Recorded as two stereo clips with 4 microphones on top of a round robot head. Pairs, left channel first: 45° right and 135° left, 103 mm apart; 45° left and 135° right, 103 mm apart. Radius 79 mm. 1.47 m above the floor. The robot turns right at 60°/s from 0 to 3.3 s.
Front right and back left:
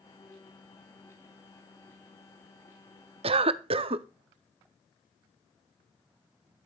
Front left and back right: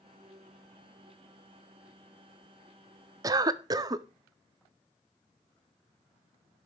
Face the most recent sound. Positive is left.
turn(degrees=170)